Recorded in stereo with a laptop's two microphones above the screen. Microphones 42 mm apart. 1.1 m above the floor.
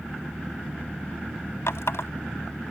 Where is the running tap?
85° left.